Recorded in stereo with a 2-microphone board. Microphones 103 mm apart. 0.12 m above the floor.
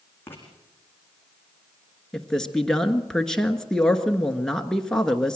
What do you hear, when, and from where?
0.3 s writing: 20° left (ahead or behind), 5 m
2.1 s a man speaking: 5° left (ahead or behind), 1.4 m